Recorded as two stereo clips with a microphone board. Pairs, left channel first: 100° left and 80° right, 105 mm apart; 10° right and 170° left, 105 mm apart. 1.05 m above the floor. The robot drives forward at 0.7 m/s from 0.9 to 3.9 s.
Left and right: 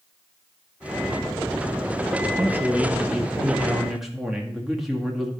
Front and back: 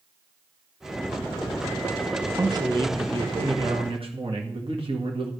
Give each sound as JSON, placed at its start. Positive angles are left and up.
{"t": 2.4, "sound": "a man speaking", "azimuth_deg": -145, "distance_m": 1.0}